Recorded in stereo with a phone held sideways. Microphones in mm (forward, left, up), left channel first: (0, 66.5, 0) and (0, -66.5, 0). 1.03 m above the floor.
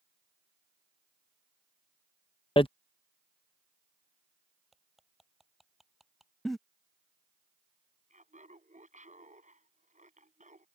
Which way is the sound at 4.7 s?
Centre (ahead or behind).